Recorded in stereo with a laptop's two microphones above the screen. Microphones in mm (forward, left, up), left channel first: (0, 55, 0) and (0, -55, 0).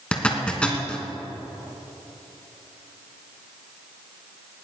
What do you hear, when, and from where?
0.1 s a zipper: 10° left (ahead or behind), 3 m